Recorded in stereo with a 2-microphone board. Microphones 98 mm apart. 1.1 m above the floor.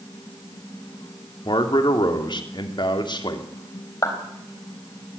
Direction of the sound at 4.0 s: 35° left (ahead or behind).